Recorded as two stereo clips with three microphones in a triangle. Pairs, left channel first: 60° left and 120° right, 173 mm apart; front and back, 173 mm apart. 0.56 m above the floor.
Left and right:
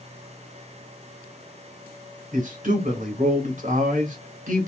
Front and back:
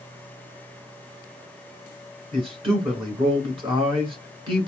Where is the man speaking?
130° right, 1.8 m.